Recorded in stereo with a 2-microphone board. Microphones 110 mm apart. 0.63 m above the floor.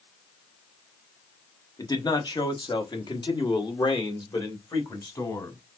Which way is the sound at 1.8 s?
35° left (ahead or behind).